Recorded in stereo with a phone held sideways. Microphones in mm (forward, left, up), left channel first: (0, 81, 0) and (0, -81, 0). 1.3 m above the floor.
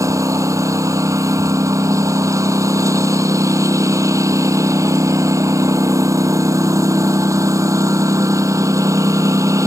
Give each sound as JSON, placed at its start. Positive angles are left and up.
{"t": 0.0, "sound": "a lawn mower", "side_deg": -20}